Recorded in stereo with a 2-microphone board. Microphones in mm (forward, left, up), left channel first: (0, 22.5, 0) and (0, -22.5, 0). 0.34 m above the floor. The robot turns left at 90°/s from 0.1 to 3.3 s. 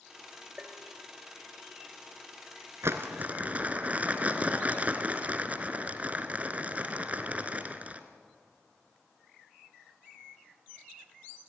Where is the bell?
20° right, 2 m; by 0.9 s 50° right, 2 m.